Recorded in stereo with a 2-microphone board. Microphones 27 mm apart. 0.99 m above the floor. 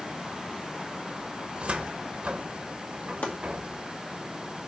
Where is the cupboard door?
50° right (ahead or behind), 1.0 m.